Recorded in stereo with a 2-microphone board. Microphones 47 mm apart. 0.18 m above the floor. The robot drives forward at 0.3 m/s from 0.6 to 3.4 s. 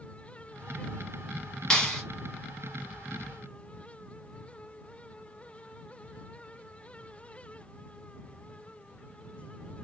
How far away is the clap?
About 1.0 m.